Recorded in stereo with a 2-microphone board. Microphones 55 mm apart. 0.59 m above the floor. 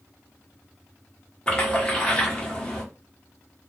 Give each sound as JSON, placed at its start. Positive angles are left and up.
{"t": 1.5, "sound": "a splash", "side_deg": 20, "distance_m": 1.2}